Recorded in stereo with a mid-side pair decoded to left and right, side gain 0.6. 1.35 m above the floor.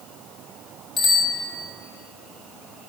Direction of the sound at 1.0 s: 35° left.